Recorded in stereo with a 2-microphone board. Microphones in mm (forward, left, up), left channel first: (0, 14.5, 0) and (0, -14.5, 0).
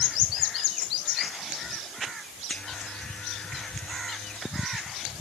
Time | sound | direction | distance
2.5 | a buzzer | 50° left (ahead or behind) | ?